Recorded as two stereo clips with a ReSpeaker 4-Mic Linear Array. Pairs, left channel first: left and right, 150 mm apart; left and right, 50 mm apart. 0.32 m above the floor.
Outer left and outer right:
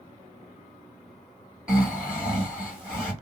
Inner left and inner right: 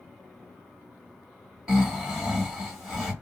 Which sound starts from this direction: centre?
Snoring, at 1.7 s.